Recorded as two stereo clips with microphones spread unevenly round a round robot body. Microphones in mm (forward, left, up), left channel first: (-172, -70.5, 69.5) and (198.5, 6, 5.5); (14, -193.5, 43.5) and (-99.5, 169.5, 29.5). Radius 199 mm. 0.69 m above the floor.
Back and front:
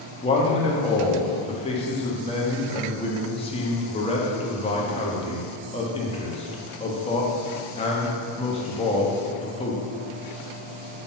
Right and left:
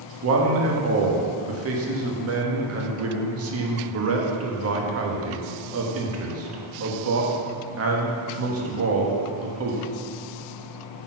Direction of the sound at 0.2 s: 110° left.